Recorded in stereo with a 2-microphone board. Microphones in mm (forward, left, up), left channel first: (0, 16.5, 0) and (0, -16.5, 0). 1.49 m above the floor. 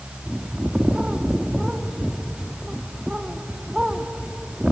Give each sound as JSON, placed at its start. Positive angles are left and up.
{"t": 0.3, "sound": "a bird", "side_deg": -25, "distance_m": 1.1}